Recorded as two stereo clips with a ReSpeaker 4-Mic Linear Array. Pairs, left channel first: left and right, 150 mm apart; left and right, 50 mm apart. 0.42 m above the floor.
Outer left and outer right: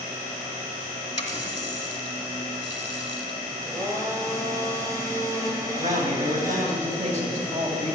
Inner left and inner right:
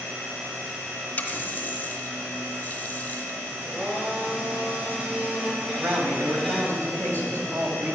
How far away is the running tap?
About 2 m.